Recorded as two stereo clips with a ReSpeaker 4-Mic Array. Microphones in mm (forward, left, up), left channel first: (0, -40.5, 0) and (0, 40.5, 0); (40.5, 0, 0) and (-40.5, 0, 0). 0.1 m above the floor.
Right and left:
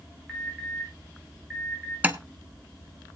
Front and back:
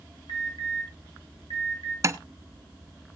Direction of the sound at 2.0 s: 150° left.